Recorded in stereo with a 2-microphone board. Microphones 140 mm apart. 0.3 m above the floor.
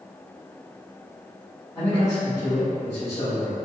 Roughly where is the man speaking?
Centre.